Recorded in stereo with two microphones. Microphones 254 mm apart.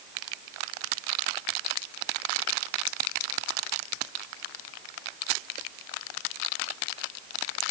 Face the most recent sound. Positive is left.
No sound to turn to.